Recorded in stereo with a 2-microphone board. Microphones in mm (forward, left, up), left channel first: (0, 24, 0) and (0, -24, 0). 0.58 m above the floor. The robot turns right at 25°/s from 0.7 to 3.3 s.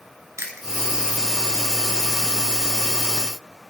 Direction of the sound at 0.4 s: 70° right (ahead or behind).